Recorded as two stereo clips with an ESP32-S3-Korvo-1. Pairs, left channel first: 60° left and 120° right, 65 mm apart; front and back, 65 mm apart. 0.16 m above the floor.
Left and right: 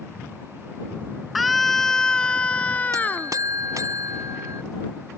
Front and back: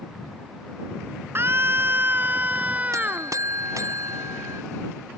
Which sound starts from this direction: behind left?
A scream, at 1.4 s.